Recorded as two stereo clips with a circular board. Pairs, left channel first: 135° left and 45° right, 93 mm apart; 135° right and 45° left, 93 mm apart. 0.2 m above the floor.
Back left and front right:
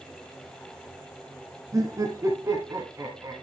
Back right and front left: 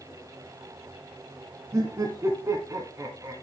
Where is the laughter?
Straight ahead, 1.7 m.